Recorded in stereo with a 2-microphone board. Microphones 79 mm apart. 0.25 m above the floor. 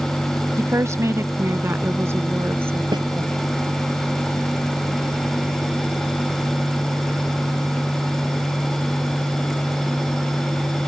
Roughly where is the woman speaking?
Right.